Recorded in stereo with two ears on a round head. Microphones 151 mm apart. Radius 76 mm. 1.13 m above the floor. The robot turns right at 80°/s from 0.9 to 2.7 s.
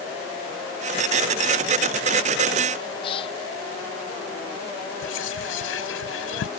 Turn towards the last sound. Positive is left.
turn(degrees=80)